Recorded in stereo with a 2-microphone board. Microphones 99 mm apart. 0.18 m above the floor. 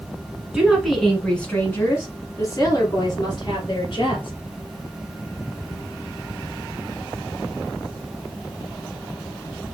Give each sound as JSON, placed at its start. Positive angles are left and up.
{"t": 0.5, "sound": "a woman speaking", "side_deg": -10, "distance_m": 1.4}